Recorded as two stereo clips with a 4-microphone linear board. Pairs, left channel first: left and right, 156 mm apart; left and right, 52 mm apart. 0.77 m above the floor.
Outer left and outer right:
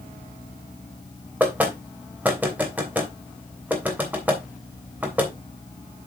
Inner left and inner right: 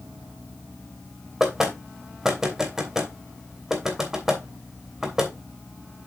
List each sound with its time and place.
1.4 s knocking: 10° right (ahead or behind), 3 m